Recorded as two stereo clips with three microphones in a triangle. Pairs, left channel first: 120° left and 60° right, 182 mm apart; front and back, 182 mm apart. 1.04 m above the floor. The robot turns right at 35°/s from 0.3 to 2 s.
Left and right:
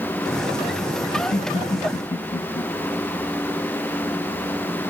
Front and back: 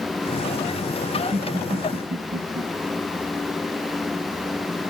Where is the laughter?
140° left, 1.4 m; by 2.6 s 170° left, 1.4 m.